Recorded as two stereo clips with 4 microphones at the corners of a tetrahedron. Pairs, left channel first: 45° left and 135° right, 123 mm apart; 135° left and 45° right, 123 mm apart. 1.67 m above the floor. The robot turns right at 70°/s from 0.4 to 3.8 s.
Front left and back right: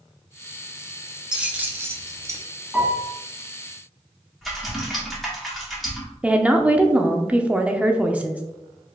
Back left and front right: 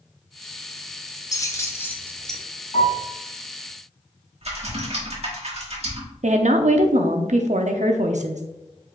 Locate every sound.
1.3 s keys jangling: 150° left, 0.7 m; by 2.4 s 135° right, 0.7 m
2.7 s a piano: 140° left, 2 m; by 3.1 s 165° left, 2 m
4.4 s typing on a keyboard: 45° right, 1.4 m
6.2 s a woman speaking: 55° right, 0.6 m